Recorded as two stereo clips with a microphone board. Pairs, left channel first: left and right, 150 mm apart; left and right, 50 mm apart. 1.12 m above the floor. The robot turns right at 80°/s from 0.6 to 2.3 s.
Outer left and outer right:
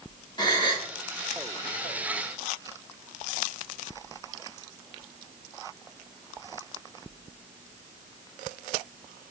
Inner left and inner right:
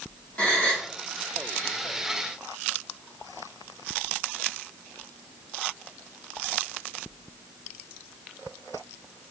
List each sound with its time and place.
0.4 s a gasp: 30° left (ahead or behind), 0.9 m; by 0.9 s 45° left (ahead or behind), 0.9 m